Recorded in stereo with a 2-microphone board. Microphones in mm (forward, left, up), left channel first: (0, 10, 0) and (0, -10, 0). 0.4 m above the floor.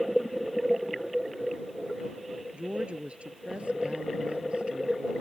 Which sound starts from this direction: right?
A woman speaking, at 2.5 s.